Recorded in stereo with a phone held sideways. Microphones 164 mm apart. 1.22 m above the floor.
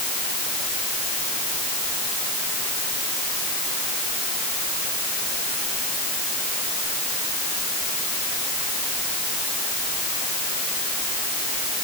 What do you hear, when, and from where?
Only background noise.